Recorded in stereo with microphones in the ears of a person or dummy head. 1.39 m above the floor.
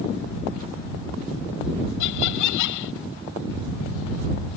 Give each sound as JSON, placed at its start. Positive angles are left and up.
{"t": 2.0, "sound": "laughter", "side_deg": 70}